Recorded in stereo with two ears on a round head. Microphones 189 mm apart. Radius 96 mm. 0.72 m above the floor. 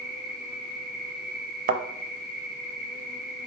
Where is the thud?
40° right (ahead or behind), 0.6 m.